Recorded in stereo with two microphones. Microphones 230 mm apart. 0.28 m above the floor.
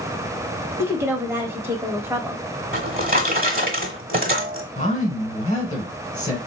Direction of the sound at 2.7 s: 40° right (ahead or behind).